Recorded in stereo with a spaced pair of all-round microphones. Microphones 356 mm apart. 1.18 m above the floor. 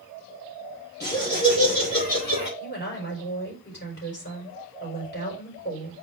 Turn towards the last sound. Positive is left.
turn(degrees=30)  # may be behind; listen again after turning